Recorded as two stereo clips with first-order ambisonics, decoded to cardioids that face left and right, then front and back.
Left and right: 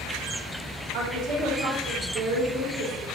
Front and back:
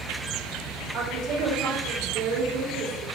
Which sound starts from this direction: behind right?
A woman speaking, at 0.9 s.